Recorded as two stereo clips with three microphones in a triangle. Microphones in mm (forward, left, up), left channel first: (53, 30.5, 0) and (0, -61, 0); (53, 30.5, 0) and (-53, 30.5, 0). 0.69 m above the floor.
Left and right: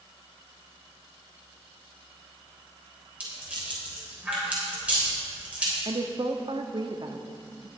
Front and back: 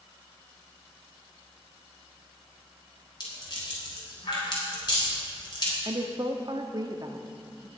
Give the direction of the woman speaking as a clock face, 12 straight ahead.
5 o'clock.